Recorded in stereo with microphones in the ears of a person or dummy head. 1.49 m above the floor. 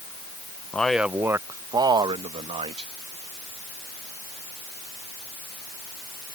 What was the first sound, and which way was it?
A man speaking, 10° left (ahead or behind).